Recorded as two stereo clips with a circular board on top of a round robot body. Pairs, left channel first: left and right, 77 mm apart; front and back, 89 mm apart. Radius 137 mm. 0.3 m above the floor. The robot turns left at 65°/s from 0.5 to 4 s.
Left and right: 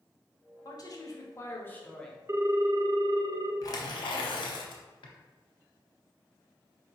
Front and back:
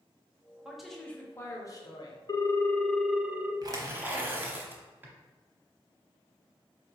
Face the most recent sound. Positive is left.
turn(degrees=110)